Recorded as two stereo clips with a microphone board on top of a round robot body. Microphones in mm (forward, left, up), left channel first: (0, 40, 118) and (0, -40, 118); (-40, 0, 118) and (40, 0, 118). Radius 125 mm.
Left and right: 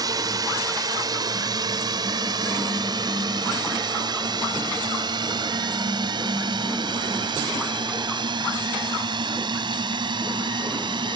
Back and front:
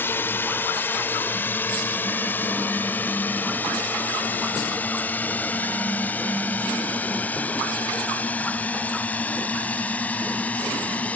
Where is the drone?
120° right; by 11.2 s 110° right.